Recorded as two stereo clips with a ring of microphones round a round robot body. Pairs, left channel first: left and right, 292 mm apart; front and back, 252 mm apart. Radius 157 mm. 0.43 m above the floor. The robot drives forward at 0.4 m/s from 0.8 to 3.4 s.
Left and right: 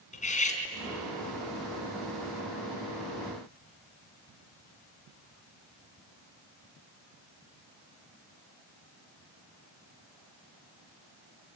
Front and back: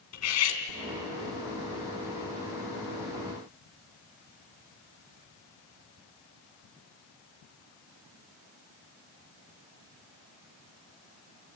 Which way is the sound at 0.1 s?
25° left.